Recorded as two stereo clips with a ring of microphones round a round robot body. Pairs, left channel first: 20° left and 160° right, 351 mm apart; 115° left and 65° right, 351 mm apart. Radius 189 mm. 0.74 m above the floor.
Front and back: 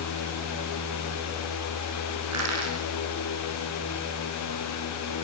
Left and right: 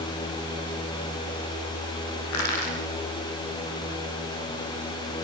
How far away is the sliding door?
I don't hear a sliding door.